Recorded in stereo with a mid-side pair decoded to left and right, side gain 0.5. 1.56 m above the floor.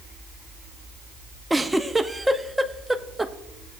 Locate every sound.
1.5 s a giggle: 5° right, 0.6 m